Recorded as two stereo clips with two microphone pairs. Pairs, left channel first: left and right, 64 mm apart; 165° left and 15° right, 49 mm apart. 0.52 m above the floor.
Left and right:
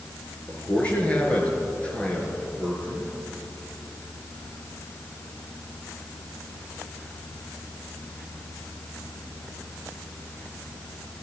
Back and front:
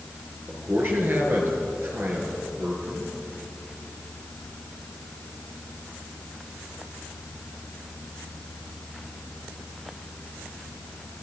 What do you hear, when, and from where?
0.5 s a man speaking: 20° left, 6.5 m